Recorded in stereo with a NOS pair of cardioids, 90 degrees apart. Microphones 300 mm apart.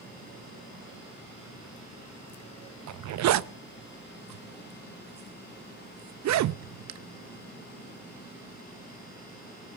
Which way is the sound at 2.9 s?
65° right.